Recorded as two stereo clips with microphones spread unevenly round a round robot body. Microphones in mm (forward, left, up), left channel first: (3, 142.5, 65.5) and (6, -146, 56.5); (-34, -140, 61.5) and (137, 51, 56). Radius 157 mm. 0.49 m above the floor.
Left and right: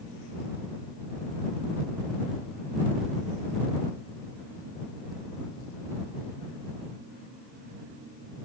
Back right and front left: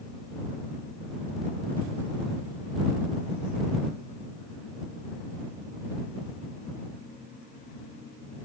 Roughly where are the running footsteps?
No running footsteps in this recording.